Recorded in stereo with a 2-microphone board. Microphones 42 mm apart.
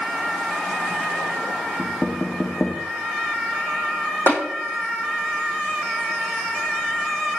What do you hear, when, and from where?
1.8 s knocking: 15° left (ahead or behind), 2.5 m
4.3 s tapping: 80° left, 7 m